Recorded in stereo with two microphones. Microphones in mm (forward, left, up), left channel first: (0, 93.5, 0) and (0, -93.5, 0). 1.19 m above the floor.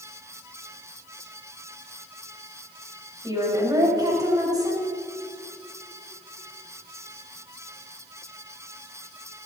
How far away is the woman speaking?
About 5 m.